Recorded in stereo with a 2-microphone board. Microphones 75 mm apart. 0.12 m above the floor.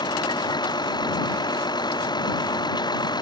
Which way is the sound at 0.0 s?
70° left (ahead or behind).